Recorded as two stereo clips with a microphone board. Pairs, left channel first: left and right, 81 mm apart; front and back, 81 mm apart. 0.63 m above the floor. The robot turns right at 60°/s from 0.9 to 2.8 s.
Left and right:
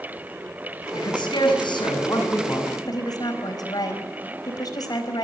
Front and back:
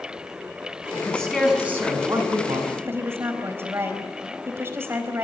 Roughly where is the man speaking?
Ahead left.